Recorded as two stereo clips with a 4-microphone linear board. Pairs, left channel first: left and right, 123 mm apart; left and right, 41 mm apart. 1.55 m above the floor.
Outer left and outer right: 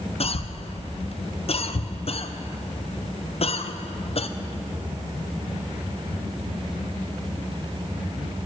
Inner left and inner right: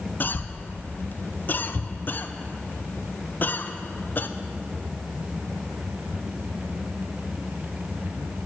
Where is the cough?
55° left (ahead or behind), 0.5 m.